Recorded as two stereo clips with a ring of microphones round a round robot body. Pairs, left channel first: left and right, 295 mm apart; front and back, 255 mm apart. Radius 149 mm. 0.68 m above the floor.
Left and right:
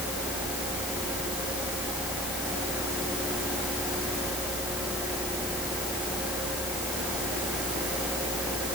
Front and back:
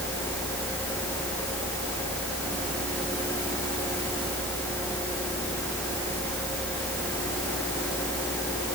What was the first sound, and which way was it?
Only background noise.